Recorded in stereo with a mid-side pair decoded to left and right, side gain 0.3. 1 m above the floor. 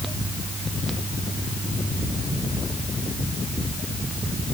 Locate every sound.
Only background noise.